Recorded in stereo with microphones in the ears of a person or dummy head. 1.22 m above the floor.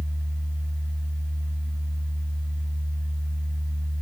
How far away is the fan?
About 1.7 m.